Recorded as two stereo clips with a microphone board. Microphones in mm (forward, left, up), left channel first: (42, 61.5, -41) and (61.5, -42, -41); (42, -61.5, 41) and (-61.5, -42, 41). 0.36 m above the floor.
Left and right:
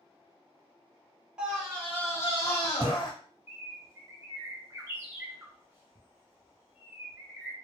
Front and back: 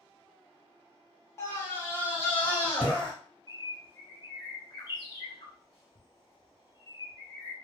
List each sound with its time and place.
1.4 s a scream: 10° right, 1.1 m; by 3.1 s 65° left, 1.8 m
3.5 s a bird: 15° right, 1.3 m